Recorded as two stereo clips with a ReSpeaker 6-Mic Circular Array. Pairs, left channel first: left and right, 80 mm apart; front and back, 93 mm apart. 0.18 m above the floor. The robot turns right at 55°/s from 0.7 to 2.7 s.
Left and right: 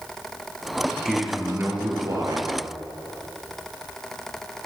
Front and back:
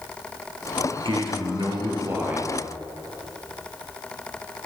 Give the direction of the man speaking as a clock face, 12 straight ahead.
6 o'clock.